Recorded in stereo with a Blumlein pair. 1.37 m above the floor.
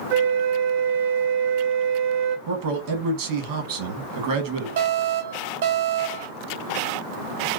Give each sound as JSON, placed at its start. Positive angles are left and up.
{"t": 0.1, "sound": "a flute", "azimuth_deg": -45, "distance_m": 0.7}
{"t": 2.5, "sound": "a man speaking", "azimuth_deg": -50, "distance_m": 1.2}
{"t": 4.8, "sound": "an alarm", "azimuth_deg": -60, "distance_m": 1.0}